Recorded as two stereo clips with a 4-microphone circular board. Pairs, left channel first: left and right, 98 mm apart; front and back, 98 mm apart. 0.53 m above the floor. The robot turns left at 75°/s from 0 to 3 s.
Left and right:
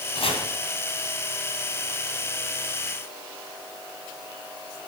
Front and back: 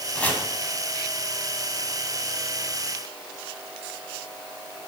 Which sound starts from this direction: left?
Chopping, at 0.1 s.